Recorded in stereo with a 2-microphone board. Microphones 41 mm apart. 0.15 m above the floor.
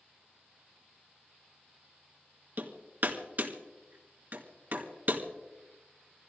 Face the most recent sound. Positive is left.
turn(degrees=-50)  # may be behind; listen again after turning